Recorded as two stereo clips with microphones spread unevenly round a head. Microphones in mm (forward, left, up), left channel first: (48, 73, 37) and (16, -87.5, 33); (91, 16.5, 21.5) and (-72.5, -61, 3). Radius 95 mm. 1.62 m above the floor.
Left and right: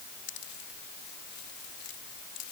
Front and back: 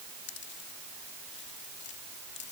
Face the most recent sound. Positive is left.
turn(degrees=60)